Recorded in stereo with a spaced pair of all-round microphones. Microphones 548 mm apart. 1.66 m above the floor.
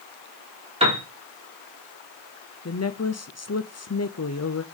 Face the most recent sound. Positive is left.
turn(degrees=30)  # may be behind; listen again after turning